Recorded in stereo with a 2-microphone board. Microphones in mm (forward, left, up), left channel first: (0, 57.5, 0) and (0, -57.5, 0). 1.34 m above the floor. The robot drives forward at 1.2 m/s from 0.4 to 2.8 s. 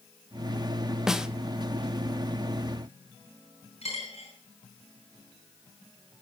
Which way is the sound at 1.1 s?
5° right (ahead or behind).